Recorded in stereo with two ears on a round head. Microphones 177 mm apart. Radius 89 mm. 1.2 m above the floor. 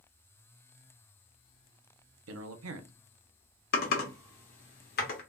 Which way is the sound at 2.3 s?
80° right.